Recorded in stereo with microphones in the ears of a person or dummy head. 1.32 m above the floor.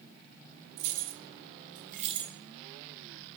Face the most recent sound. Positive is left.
turn(degrees=-20)  # may be behind; listen again after turning